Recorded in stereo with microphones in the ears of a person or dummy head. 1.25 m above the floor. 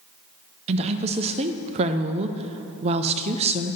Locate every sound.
0.7 s a woman speaking: 35° right (ahead or behind), 0.5 m